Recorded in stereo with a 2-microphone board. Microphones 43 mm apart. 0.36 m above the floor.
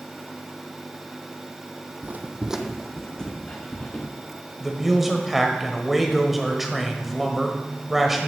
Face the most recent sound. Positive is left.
turn(degrees=-5)  # may be behind; listen again after turning